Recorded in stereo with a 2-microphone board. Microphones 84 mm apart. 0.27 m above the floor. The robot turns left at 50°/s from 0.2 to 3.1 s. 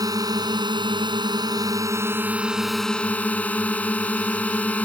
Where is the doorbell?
I don't hear a doorbell.